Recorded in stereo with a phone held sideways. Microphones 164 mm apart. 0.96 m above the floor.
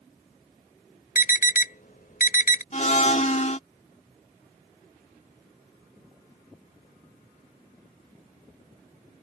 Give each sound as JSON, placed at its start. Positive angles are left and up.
{"t": 1.1, "sound": "an alarm", "side_deg": 65}
{"t": 2.7, "sound": "a blender", "side_deg": 50}